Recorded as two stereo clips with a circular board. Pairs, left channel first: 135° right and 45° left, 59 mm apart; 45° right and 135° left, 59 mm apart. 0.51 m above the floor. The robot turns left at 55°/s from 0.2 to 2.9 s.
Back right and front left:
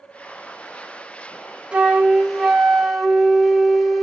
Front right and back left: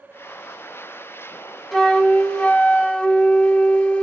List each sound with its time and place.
1.7 s a flute: 20° left, 0.7 m; by 4.0 s 45° right, 0.7 m